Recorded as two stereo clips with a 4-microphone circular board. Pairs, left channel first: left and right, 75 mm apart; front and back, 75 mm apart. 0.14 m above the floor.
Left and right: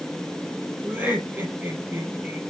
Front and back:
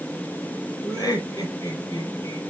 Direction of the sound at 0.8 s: 25° right.